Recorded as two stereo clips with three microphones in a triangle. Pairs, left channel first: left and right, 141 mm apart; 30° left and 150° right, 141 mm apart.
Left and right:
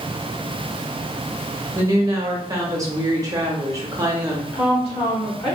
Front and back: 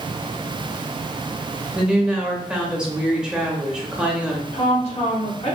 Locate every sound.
1.8 s a woman speaking: 75° right, 0.7 m
4.5 s a woman speaking: 50° left, 1.4 m